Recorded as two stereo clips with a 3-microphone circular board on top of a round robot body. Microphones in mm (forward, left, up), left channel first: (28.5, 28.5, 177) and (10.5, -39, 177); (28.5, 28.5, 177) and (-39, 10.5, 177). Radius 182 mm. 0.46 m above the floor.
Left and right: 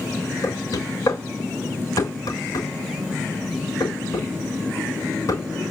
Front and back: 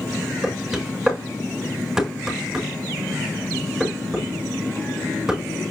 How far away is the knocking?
About 5.5 m.